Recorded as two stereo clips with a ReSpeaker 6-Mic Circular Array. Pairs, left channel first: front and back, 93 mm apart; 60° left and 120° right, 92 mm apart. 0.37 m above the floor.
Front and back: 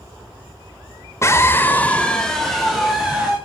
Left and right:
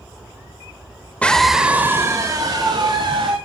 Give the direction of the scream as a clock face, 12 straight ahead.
12 o'clock.